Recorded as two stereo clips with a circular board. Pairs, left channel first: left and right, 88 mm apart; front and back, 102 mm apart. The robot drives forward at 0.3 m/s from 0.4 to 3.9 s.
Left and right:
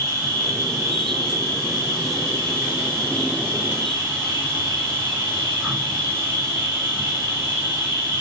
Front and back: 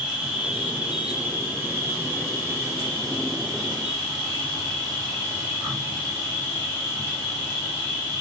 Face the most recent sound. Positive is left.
turn(degrees=-145)